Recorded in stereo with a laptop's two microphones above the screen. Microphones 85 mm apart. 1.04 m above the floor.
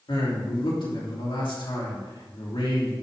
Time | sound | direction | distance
0.1 | a man speaking | 75° left (ahead or behind) | 2.5 m